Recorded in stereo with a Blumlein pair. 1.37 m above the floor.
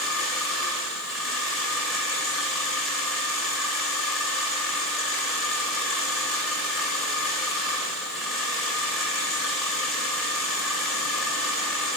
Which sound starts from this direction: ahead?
A machine running, at 0.0 s.